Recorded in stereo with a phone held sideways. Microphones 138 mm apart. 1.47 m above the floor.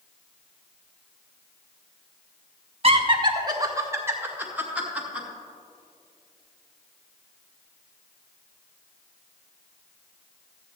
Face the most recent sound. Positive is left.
turn(degrees=-5)  # may be behind; listen again after turning